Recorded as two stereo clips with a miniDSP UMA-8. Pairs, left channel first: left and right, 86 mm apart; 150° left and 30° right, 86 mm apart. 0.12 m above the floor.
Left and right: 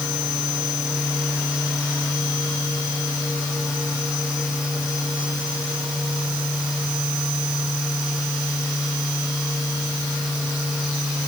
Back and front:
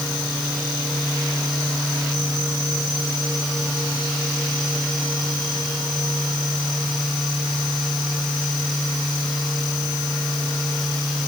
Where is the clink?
I don't hear a clink.